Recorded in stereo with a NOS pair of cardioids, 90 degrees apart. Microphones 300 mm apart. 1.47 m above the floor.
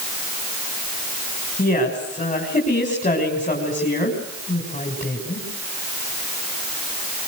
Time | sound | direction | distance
1.6 | a woman speaking | 25° left | 6.5 m